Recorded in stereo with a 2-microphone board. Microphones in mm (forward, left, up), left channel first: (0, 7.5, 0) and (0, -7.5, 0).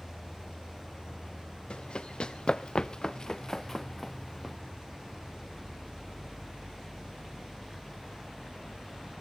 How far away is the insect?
About 1.8 m.